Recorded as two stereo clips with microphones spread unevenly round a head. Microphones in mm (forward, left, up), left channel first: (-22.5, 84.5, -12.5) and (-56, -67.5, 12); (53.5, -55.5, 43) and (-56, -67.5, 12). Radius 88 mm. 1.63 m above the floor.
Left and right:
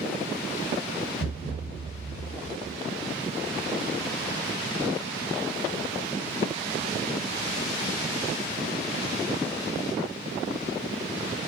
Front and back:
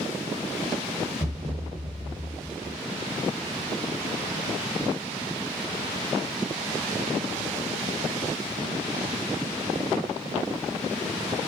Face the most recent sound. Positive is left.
turn(degrees=45)